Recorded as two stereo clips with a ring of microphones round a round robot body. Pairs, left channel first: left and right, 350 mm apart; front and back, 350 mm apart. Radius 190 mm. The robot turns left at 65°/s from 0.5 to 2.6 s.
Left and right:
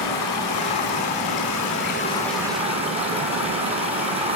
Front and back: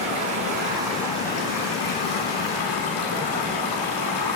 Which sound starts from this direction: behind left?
Running water, at 0.0 s.